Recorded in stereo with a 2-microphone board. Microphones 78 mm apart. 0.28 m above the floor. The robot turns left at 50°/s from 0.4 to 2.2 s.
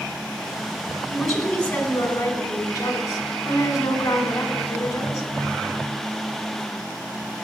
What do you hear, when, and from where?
1.1 s a woman speaking: 175° right, 2.5 m; by 5.3 s 130° left, 2.5 m